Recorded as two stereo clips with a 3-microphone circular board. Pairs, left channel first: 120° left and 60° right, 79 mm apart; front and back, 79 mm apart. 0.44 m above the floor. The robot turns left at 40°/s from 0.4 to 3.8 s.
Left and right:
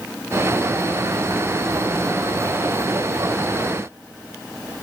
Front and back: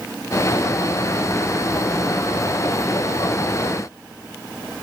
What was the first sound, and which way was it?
Only background noise.